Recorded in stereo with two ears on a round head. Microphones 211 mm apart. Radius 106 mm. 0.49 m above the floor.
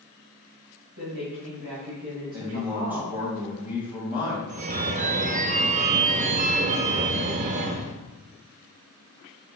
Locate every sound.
1.0 s a woman speaking: 60° right (ahead or behind), 2.5 m; by 3.2 s 50° right (ahead or behind), 3.5 m
2.3 s a man speaking: 5° right (ahead or behind), 3 m
4.5 s a phone ringing: 30° right (ahead or behind), 0.5 m